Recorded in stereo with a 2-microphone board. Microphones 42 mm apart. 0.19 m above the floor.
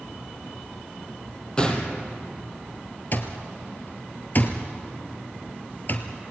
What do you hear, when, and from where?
1.6 s a gunshot: 20° left (ahead or behind), 3 m
3.1 s an alarm clock: 45° left (ahead or behind), 1.9 m